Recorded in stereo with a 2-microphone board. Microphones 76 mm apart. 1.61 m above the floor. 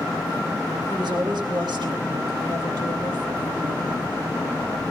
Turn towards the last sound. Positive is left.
turn(degrees=-85)